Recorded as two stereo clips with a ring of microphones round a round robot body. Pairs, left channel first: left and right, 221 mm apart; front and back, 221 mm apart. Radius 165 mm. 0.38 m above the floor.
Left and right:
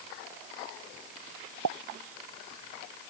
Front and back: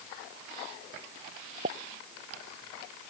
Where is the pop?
110° right.